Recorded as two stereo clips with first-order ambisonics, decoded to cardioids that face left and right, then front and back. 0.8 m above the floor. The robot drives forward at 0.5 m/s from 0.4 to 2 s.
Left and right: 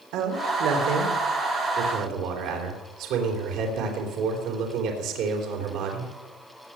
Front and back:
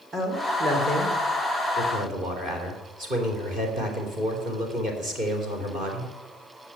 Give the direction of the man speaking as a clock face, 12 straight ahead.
4 o'clock.